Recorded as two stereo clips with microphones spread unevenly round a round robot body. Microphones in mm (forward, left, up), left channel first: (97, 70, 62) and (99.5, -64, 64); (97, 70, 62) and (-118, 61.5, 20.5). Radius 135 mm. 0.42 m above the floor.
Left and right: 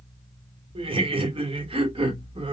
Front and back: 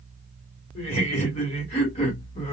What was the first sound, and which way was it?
Laughter, 60° right.